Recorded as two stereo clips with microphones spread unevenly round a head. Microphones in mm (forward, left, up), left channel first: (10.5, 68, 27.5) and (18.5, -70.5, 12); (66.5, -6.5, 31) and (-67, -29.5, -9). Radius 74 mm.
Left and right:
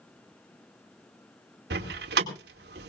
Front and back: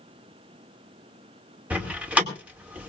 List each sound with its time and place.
1.7 s a door slam: 90° right, 2 m